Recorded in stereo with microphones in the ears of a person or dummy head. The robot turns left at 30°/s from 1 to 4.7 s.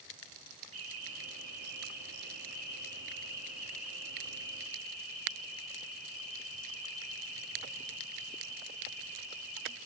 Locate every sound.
0.7 s an alarm: 95° right, 4.5 m; by 9.8 s 150° left, 4.5 m